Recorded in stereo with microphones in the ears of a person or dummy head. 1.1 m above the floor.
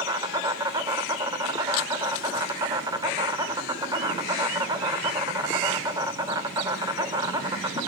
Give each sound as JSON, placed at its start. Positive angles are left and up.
{"t": 0.0, "sound": "an insect", "side_deg": -20, "distance_m": 0.9}